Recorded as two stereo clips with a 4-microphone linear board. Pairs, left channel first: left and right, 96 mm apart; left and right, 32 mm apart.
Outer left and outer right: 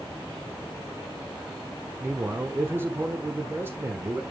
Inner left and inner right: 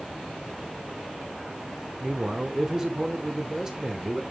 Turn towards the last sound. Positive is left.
turn(degrees=-25)  # may be behind; listen again after turning